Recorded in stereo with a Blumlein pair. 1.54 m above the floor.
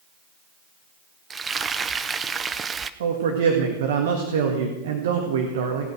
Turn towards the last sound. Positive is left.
turn(degrees=-60)